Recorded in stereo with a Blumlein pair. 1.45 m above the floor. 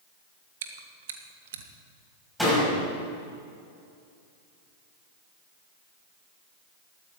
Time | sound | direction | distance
0.6 | chewing | 60° right | 1.4 m
2.4 | a door slam | 5° left | 6 m